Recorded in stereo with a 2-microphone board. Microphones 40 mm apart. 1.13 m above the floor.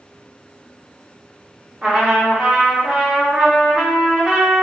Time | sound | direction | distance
1.8 | a trumpet | 15° right (ahead or behind) | 1.0 m